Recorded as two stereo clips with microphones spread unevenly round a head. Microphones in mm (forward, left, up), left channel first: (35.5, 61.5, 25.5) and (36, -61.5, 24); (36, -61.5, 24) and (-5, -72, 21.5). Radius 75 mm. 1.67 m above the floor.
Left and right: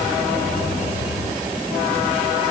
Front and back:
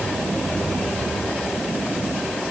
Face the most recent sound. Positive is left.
No sound to turn to.